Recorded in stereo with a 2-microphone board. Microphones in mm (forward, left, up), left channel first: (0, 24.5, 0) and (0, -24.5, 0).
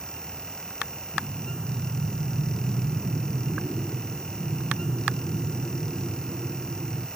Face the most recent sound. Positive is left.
turn(degrees=-25)  # may be behind; listen again after turning